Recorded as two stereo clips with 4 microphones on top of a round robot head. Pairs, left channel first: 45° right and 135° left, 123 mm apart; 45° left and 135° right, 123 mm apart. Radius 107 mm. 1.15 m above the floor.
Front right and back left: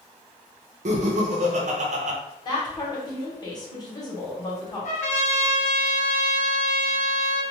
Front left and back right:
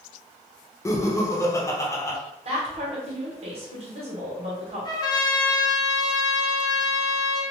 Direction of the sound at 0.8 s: 110° left.